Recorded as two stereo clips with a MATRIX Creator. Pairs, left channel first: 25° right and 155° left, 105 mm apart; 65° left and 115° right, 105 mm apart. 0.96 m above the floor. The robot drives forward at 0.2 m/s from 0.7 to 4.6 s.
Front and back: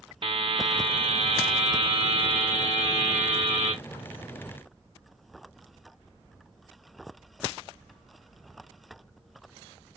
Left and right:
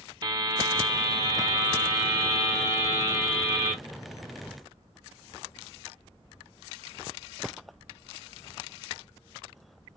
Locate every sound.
0.2 s a buzzer: 165° right, 0.5 m; by 3.7 s 175° right, 1.1 m